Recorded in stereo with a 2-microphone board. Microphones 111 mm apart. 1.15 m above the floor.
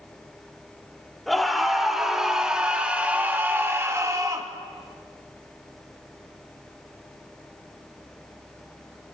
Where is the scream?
Centre (ahead or behind), 3.5 m; by 4.5 s 35° right (ahead or behind), 2.0 m.